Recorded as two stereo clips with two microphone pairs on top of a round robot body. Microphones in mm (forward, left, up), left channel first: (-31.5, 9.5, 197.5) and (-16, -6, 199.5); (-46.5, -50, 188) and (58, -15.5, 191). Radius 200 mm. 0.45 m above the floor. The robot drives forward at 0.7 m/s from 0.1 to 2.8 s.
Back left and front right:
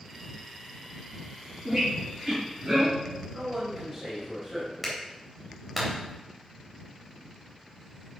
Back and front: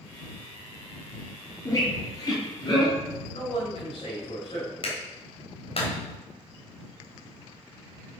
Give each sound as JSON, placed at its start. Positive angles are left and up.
{"t": 1.6, "sound": "a squeak", "azimuth_deg": -100, "distance_m": 4.5}
{"t": 3.3, "sound": "a man speaking", "azimuth_deg": -120, "distance_m": 3.5}
{"t": 4.8, "sound": "a clap", "azimuth_deg": -135, "distance_m": 3.0}